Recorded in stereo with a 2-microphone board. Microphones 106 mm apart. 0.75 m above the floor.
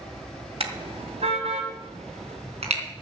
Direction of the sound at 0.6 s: 65° right (ahead or behind).